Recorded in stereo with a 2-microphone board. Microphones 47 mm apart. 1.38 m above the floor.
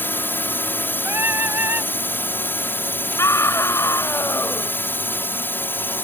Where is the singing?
60° right (ahead or behind).